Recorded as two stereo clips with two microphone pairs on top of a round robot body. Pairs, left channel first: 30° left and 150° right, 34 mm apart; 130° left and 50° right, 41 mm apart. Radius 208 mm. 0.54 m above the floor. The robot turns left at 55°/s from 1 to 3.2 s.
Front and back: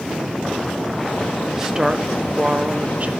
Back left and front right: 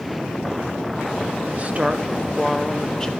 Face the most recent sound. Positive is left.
turn(degrees=-170)